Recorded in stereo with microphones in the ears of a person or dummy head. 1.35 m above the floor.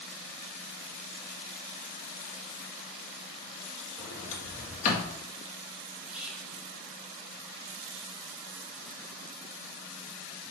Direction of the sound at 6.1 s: 5° right (ahead or behind).